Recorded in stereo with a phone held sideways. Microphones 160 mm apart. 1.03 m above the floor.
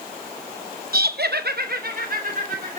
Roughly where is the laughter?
Right.